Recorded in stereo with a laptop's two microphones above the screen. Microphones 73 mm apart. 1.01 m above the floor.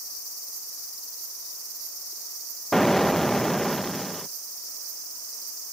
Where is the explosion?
5° left (ahead or behind).